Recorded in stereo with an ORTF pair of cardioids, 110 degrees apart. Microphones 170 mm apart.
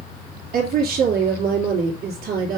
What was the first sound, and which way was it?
A woman speaking, 60° right.